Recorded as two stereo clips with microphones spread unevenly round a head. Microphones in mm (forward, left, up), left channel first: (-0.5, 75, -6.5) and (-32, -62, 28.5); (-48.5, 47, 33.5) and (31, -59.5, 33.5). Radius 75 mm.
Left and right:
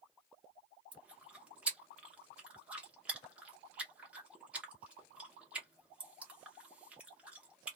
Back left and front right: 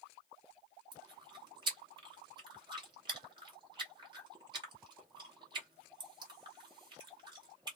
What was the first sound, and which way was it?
Chewing, 60° right.